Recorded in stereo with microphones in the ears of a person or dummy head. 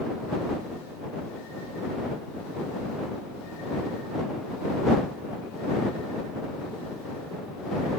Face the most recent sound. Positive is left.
No sound to turn to.